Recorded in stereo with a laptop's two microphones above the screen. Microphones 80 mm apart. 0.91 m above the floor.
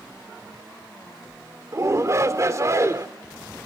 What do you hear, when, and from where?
1.7 s a shout: 40° right (ahead or behind), 2 m